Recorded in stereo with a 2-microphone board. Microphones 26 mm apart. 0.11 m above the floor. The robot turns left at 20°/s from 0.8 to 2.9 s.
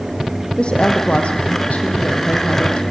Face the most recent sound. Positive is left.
turn(degrees=90)